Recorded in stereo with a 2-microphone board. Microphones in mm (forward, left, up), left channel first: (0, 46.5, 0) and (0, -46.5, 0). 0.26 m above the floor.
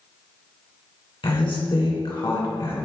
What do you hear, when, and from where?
1.2 s a woman speaking: 65° left (ahead or behind), 2 m